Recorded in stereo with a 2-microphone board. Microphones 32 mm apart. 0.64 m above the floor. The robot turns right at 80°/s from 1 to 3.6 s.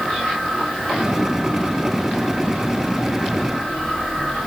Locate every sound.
Only background noise.